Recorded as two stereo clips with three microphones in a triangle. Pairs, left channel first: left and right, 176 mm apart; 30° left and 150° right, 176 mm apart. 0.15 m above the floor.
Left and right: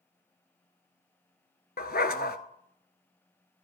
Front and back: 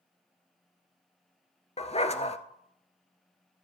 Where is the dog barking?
75° left, 0.7 m.